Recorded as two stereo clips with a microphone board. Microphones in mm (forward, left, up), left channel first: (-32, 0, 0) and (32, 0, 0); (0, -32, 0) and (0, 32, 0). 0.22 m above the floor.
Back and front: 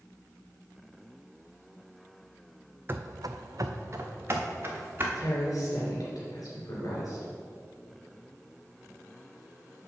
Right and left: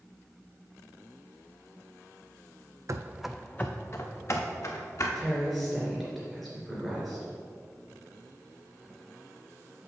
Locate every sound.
2.9 s running footsteps: 55° left, 0.6 m; by 5.0 s 55° right, 2.5 m
5.2 s a woman speaking: straight behind, 3 m